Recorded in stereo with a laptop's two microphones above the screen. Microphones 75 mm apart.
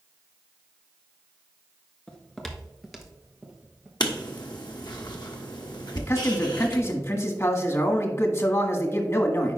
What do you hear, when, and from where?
2.1 s footsteps: 15° left (ahead or behind), 0.9 m; by 3.9 s 10° right (ahead or behind), 1.6 m
4.0 s writing: 70° left (ahead or behind), 1.2 m
6.0 s a man speaking: 40° left (ahead or behind), 1.5 m